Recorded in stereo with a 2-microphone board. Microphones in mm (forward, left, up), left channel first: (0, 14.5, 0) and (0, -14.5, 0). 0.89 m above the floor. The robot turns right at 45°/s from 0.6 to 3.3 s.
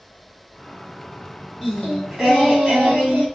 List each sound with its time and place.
1.6 s singing: 170° left, 1.6 m; by 3.2 s 120° right, 1.6 m